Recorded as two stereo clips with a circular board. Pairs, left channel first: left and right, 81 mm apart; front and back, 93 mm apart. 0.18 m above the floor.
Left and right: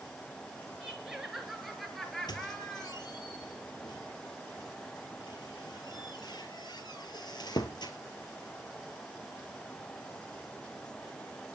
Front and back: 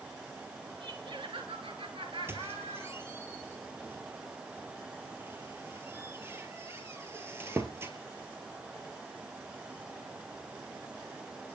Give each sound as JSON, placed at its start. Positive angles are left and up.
{"t": 0.8, "sound": "laughter", "azimuth_deg": -170, "distance_m": 3.0}
{"t": 2.3, "sound": "a squeak", "azimuth_deg": 115, "distance_m": 1.9}